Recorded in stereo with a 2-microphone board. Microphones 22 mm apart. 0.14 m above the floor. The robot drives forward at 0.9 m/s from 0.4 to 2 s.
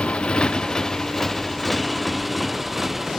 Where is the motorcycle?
60° left (ahead or behind); by 3.2 s 10° right (ahead or behind).